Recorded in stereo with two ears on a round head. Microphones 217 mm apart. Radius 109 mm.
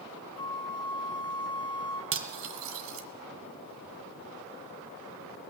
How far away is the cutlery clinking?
About 2 m.